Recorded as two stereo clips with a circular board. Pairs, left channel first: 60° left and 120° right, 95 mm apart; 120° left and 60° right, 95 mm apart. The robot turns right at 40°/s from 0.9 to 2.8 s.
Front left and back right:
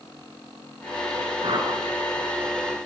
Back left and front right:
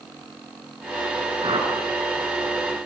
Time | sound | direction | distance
1.4 | a whoosh | 90° right | 6.5 m